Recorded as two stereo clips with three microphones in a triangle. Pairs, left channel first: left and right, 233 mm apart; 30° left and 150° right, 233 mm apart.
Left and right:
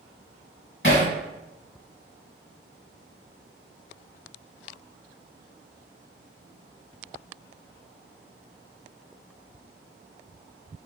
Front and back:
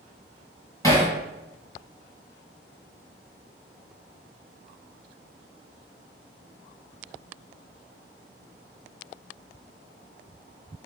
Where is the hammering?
105° left, 1.7 m.